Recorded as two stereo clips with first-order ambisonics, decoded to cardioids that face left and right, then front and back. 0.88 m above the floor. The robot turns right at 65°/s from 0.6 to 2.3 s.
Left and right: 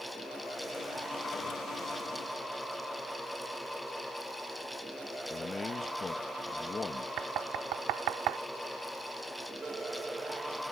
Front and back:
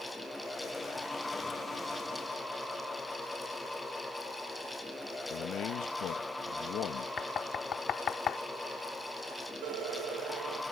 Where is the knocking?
60° right.